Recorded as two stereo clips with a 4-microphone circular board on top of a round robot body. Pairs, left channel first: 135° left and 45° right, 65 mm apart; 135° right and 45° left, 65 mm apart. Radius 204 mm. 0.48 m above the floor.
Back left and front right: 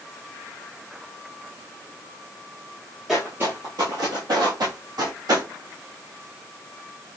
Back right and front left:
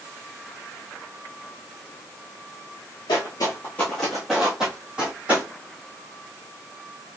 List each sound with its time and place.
3.1 s footsteps: 130° right, 0.6 m; by 5.5 s 25° right, 1.8 m